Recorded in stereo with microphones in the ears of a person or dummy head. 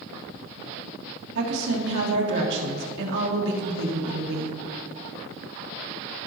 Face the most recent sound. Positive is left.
turn(degrees=-65)  # may be behind; listen again after turning